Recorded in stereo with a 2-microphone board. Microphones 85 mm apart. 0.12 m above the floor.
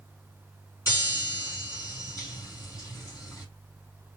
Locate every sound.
0.9 s a chime: 40° left (ahead or behind), 4.5 m